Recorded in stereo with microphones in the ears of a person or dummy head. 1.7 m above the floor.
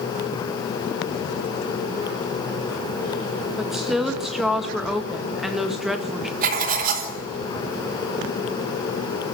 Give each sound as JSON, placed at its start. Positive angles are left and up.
{"t": 3.6, "sound": "a woman speaking", "side_deg": 0, "distance_m": 2.0}
{"t": 6.4, "sound": "writing", "side_deg": -55, "distance_m": 4.0}